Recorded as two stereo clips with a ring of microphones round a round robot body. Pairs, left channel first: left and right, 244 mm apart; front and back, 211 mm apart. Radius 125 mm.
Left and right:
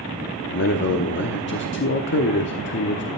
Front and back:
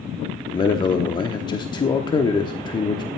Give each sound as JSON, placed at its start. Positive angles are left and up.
{"t": 0.5, "sound": "a man speaking", "azimuth_deg": 65, "distance_m": 1.0}